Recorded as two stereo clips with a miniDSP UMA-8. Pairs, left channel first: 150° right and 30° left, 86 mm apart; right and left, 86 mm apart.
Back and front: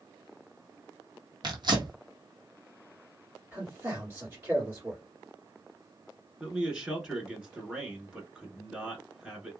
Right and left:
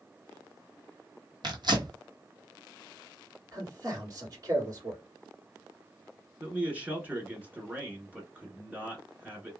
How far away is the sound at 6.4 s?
About 1.1 m.